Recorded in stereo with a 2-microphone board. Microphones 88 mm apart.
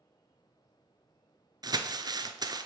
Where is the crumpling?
50° right (ahead or behind), 0.6 m.